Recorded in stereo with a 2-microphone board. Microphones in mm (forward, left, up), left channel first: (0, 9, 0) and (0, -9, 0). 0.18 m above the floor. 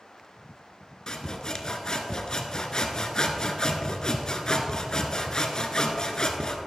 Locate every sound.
1.1 s sawing: 40° left (ahead or behind), 1.0 m